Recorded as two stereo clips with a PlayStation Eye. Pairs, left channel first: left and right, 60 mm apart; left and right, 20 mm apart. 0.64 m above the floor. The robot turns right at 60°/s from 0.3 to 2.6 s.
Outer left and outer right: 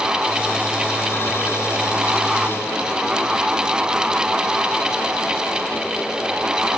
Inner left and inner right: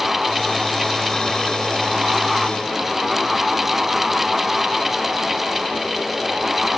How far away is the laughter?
No laughter in this recording.